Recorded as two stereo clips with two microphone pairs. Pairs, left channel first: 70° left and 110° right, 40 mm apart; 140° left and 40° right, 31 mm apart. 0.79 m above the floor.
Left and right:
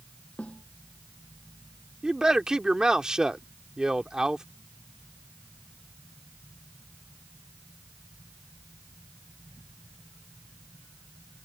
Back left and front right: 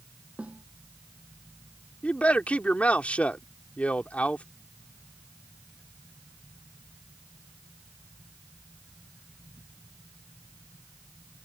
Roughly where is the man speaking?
Behind.